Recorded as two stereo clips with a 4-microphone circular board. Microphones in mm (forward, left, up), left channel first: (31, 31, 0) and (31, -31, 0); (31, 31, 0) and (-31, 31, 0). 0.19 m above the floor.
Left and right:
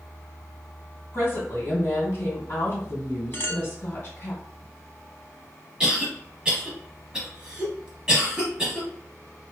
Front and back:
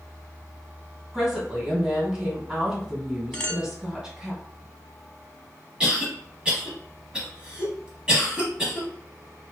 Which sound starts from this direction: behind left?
A woman speaking, at 1.1 s.